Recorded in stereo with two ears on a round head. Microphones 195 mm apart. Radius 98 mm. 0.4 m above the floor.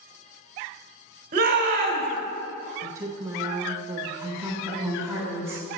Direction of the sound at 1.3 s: 40° right (ahead or behind).